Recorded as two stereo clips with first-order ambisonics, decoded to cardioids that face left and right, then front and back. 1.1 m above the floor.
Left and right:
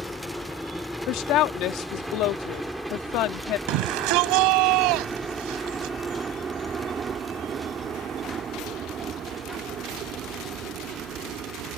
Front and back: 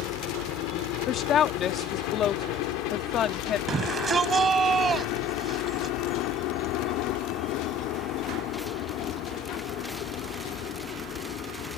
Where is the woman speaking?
55° left.